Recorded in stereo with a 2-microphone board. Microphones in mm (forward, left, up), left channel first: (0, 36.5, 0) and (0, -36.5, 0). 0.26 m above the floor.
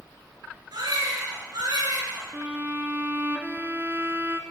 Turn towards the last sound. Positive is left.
turn(degrees=-25)  # may be behind; listen again after turning